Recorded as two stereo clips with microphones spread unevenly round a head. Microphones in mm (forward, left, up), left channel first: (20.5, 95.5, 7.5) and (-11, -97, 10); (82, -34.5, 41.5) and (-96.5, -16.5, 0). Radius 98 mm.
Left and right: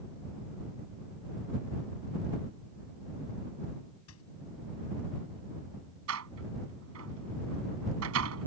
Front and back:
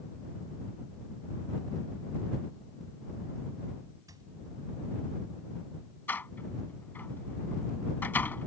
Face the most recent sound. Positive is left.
turn(degrees=-85)